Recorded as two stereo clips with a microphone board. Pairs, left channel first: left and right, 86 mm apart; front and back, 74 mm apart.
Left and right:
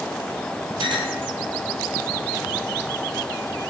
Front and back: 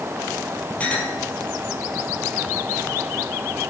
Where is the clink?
70° right, 3 m.